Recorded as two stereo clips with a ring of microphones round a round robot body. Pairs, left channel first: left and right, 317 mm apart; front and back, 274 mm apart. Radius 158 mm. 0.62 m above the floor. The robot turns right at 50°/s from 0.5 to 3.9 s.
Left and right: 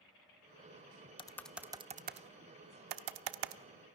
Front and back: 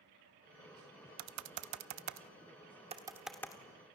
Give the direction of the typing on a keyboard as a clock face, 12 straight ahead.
7 o'clock.